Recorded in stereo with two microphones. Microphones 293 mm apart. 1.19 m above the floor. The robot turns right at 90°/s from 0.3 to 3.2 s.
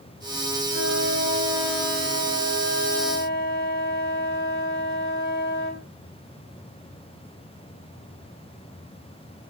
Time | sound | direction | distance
0.7 | a flute | 85° right | 3 m